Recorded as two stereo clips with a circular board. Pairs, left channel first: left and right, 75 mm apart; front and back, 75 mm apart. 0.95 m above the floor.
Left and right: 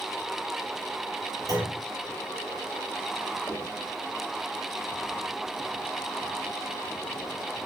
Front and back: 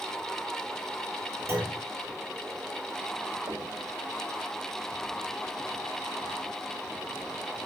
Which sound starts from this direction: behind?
Knocking, at 3.5 s.